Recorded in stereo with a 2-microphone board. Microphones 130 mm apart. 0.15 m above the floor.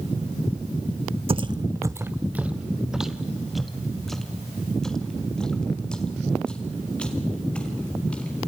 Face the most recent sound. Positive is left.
turn(degrees=10)  # may be behind; listen again after turning